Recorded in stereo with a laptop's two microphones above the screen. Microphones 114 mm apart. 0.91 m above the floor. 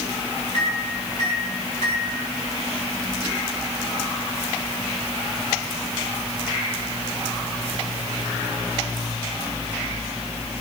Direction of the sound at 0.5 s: 80° right.